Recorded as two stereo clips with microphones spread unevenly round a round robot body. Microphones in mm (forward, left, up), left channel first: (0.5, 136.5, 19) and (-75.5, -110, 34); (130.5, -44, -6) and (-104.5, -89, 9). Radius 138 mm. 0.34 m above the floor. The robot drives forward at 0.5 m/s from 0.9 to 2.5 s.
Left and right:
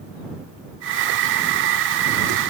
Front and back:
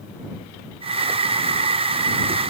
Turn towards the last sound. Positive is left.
No sound to turn to.